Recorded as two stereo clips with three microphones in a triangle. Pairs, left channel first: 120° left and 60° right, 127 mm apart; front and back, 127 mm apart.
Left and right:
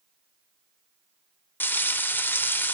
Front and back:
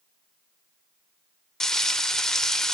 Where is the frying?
75° left, 0.5 m.